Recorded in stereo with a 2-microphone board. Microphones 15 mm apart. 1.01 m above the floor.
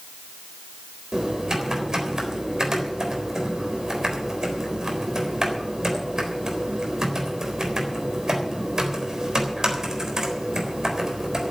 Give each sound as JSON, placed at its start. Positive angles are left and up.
{"t": 1.1, "sound": "typing on a keyboard", "side_deg": -40, "distance_m": 3.5}